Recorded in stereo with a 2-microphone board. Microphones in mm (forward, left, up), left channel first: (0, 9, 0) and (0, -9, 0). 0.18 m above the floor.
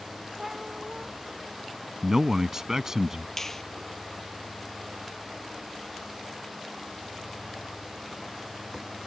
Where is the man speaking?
30° right (ahead or behind).